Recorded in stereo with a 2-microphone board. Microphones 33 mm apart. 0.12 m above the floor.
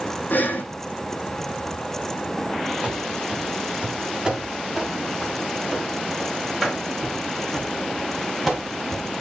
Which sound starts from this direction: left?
Breathing, at 0.3 s.